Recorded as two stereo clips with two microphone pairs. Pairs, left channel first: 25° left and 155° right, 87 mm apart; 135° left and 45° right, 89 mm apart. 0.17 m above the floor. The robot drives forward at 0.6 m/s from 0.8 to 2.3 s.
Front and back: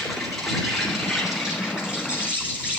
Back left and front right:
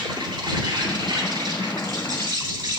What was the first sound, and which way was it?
An insect, 65° right.